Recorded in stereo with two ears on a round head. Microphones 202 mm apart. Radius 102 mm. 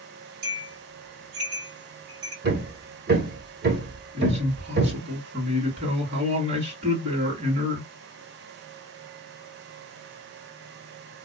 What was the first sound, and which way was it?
A bell, 40° right (ahead or behind).